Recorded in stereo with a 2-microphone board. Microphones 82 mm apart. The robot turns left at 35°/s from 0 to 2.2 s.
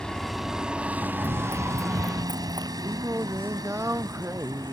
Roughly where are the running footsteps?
Right.